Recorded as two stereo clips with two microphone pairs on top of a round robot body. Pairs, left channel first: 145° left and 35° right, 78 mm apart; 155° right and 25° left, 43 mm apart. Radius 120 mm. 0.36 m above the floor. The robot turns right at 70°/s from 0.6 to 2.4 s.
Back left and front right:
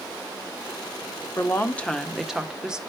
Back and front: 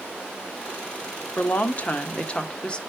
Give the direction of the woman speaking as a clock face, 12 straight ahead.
6 o'clock.